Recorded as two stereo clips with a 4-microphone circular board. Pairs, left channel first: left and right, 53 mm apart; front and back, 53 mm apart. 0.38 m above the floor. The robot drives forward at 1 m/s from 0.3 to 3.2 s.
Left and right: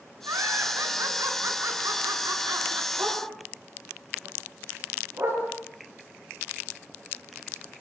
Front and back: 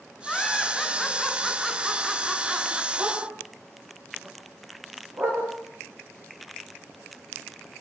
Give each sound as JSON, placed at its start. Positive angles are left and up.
{"t": 0.2, "sound": "laughter", "azimuth_deg": -80, "distance_m": 5.5}
{"t": 3.0, "sound": "a dog barking", "azimuth_deg": -135, "distance_m": 9.5}